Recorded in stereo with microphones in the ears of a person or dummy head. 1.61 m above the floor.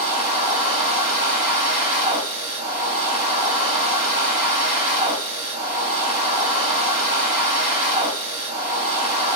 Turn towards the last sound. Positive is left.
turn(degrees=-45)  # may be behind; listen again after turning